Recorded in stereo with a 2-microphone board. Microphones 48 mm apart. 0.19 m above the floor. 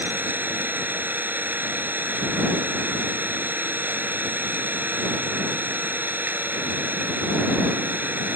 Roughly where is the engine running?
Right.